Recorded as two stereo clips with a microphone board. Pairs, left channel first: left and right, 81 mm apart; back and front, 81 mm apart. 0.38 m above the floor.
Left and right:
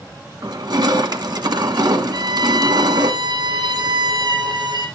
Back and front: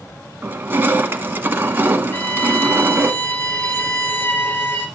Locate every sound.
0.4 s crushing: 60° right, 1.1 m
2.1 s a violin: 120° right, 2 m